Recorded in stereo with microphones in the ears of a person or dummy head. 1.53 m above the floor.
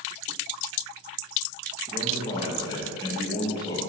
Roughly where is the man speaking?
Left.